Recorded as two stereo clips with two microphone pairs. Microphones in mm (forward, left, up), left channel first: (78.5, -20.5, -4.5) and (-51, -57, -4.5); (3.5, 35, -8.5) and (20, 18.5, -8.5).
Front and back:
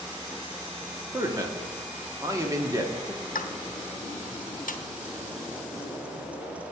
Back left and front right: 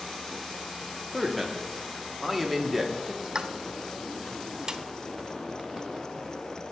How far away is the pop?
About 0.6 m.